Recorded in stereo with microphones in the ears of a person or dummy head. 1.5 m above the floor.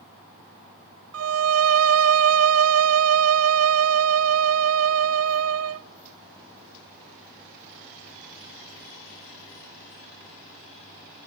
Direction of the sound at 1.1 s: 70° right (ahead or behind).